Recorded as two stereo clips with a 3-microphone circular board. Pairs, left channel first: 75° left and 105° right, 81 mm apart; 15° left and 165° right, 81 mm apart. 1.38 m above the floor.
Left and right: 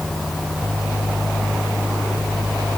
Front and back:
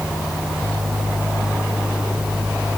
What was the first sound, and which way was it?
Only background noise.